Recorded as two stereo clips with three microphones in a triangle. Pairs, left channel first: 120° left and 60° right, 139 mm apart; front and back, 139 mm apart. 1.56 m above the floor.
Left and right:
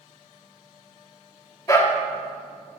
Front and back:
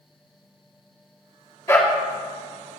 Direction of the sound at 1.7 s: 65° left.